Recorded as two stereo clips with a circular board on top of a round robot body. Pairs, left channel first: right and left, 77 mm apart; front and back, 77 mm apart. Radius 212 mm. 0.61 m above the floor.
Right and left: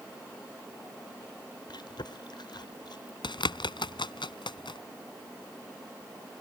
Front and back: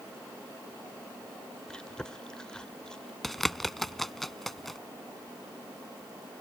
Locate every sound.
1.7 s chewing: 80° right
3.2 s a bird: 85° right